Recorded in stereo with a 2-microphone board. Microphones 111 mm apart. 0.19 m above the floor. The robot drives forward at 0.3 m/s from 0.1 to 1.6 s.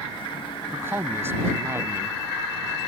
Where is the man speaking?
20° right (ahead or behind).